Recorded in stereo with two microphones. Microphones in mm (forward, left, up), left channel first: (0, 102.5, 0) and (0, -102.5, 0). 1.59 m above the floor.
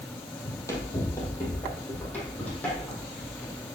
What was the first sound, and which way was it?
Running footsteps, 15° left (ahead or behind).